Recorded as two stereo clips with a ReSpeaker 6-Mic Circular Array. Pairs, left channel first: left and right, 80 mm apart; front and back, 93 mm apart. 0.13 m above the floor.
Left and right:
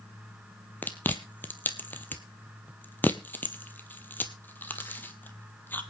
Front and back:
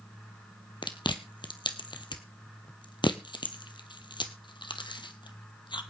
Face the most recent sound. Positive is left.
turn(degrees=25)